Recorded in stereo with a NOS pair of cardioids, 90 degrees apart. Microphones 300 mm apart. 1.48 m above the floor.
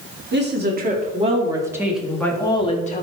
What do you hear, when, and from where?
0.3 s a woman speaking: 35° right, 3 m; by 3.0 s 25° left, 2.5 m